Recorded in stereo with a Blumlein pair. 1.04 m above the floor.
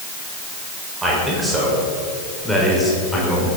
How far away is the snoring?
No snoring in this recording.